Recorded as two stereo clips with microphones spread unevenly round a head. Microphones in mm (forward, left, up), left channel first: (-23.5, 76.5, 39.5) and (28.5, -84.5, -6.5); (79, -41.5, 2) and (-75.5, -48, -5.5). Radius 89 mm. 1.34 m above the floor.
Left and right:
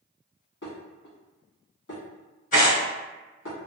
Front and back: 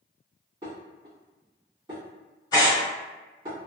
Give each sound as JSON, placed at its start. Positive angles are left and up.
{"t": 0.6, "sound": "dishes clattering", "azimuth_deg": 115, "distance_m": 1.5}
{"t": 2.5, "sound": "tearing paper", "azimuth_deg": 70, "distance_m": 1.7}